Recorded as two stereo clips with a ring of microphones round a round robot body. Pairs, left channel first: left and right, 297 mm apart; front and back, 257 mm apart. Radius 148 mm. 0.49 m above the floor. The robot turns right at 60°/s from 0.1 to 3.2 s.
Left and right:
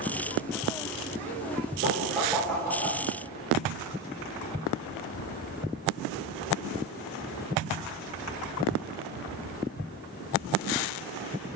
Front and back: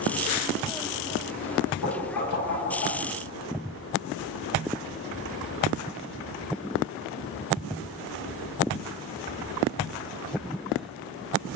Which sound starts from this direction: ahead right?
Knocking, at 1.8 s.